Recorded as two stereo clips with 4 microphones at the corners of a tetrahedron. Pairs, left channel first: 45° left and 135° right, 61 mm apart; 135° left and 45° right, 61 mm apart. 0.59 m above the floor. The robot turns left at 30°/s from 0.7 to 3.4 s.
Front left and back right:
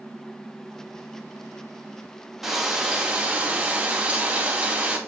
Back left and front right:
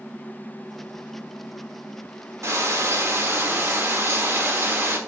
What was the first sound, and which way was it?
Frying, 50° right.